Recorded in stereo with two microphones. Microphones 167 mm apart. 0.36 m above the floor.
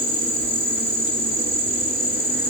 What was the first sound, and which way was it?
An insect, 65° left (ahead or behind).